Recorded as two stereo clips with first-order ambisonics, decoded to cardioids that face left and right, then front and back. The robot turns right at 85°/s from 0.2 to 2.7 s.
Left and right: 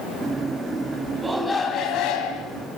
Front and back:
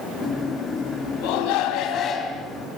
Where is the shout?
15° right, 4.5 m; by 2.5 s 95° left, 4.5 m.